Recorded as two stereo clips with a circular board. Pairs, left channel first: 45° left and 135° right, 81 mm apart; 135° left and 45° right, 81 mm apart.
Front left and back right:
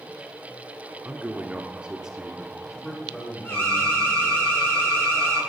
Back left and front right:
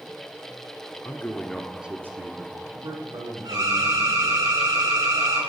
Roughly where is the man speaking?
Behind.